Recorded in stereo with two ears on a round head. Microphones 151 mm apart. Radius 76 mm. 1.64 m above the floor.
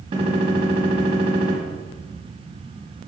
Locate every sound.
0.1 s a gunshot: 35° right (ahead or behind), 2.0 m